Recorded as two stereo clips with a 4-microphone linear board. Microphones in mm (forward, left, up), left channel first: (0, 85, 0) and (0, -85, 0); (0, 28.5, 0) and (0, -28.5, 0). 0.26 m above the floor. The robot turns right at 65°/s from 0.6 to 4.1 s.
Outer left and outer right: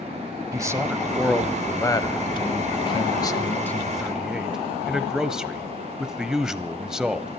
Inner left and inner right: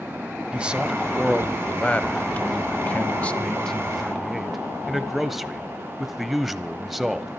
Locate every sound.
0.5 s a man speaking: 20° right (ahead or behind), 1.2 m; by 7.3 s 5° right (ahead or behind), 1.2 m